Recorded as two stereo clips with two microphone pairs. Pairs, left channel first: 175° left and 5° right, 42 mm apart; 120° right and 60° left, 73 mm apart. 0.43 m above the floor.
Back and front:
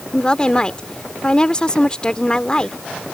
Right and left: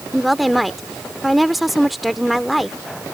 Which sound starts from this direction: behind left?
A woman speaking, at 0.1 s.